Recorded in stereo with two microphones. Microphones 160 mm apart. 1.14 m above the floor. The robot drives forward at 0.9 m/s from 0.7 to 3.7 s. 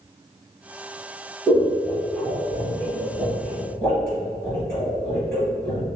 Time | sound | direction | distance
1.5 | scissors | 10° left (ahead or behind) | 1.8 m